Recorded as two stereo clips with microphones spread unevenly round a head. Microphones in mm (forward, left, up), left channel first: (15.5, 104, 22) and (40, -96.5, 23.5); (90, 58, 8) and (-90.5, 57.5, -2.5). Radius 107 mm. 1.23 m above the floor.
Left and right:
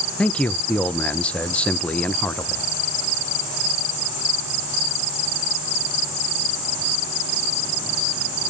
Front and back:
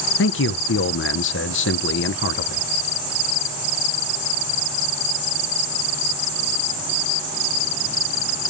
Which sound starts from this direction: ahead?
A man speaking, at 0.2 s.